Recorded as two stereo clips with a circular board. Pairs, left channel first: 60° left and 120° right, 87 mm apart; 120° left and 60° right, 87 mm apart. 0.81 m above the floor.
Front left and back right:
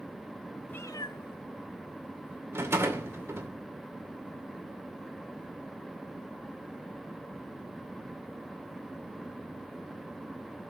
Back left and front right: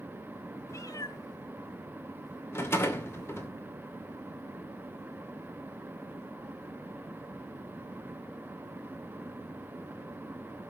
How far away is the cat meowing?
About 0.5 m.